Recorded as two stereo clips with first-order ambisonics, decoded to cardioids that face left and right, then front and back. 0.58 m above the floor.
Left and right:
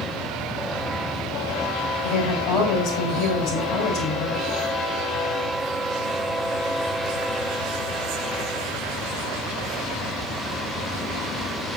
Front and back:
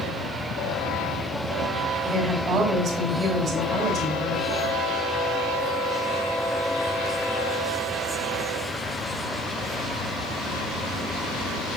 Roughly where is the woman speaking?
Behind left.